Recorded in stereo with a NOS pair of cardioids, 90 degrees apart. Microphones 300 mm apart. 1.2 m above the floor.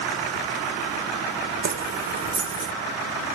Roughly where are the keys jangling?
Ahead right.